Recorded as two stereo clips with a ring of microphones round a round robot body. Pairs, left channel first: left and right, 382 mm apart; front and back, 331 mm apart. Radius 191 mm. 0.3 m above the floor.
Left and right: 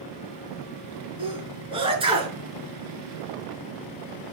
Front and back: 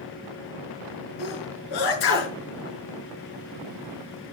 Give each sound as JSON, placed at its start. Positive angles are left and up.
{"t": 1.2, "sound": "a sneeze", "azimuth_deg": -15, "distance_m": 5.5}